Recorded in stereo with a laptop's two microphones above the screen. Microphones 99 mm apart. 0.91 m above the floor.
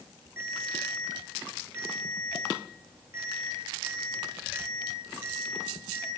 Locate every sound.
0.4 s a ringtone: 25° right (ahead or behind), 7.5 m